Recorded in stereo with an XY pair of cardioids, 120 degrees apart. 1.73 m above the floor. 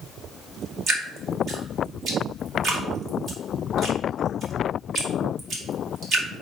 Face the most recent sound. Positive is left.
turn(degrees=-45)